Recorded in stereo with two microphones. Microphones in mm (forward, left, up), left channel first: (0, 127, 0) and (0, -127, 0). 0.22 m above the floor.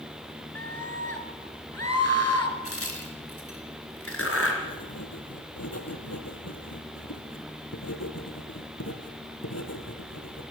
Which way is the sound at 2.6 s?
60° left (ahead or behind).